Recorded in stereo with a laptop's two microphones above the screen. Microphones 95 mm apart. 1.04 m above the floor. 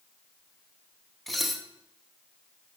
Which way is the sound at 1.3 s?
Centre (ahead or behind).